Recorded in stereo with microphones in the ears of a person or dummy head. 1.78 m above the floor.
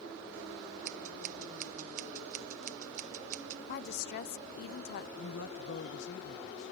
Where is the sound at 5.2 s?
65° left (ahead or behind).